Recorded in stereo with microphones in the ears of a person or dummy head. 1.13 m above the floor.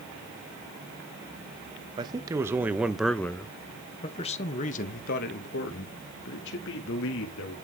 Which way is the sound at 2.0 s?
25° right (ahead or behind).